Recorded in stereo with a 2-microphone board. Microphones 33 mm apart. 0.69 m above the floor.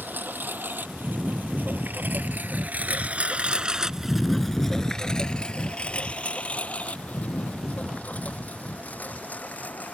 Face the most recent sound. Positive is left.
turn(degrees=55)  # may be behind; listen again after turning